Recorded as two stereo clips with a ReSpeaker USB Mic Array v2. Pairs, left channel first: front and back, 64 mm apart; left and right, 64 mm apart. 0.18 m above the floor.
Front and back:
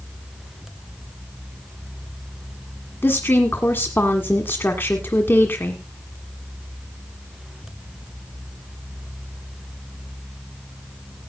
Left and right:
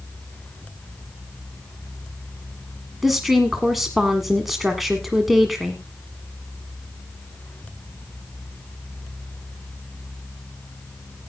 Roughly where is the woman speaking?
Ahead.